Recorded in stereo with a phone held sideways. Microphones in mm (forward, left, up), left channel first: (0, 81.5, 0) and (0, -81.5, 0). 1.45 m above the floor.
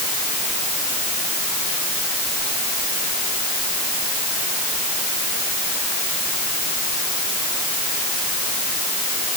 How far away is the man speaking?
I don't hear a man speaking.